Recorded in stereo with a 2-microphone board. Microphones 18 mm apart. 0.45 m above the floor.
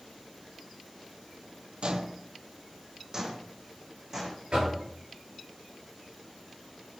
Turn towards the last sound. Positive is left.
turn(degrees=-60)  # may be behind; listen again after turning